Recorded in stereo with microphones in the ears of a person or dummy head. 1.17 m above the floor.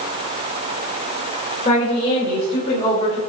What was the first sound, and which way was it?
A woman speaking, 25° left (ahead or behind).